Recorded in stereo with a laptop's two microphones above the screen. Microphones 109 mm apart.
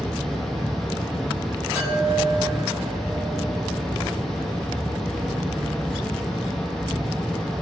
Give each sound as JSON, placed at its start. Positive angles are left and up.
{"t": 0.0, "sound": "a fan", "side_deg": 5, "distance_m": 0.9}
{"t": 1.8, "sound": "a chime", "side_deg": -25, "distance_m": 1.5}